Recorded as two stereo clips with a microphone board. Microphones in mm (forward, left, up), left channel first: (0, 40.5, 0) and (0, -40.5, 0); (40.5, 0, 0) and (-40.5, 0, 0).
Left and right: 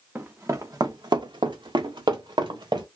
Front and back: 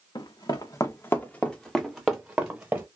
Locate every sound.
0.1 s running footsteps: 25° right, 0.8 m; by 2.9 s 115° right, 1.2 m